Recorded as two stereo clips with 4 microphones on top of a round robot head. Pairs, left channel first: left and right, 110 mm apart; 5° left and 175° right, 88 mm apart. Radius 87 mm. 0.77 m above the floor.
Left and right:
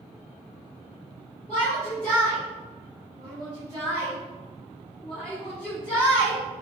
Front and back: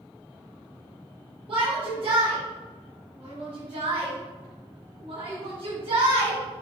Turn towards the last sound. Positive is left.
turn(degrees=170)